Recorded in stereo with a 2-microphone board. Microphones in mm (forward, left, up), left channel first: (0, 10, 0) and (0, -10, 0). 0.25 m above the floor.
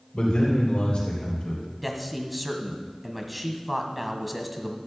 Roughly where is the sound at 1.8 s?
Centre.